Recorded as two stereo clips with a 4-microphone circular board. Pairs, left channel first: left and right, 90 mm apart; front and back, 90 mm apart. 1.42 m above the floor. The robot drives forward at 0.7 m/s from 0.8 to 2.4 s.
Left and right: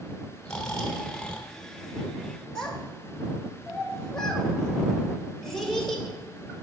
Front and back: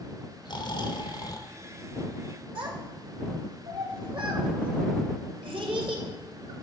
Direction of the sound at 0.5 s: 10° left.